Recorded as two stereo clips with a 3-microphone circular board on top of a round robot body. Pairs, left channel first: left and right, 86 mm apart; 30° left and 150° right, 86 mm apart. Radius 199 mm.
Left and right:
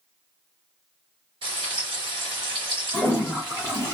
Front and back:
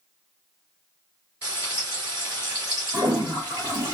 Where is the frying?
80° right, 0.8 m.